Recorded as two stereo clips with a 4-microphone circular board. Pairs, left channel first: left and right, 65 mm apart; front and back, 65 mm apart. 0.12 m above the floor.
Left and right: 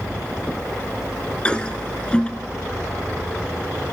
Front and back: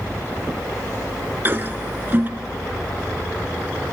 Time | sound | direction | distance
1.4 | a toilet flushing | 150° left | 0.5 m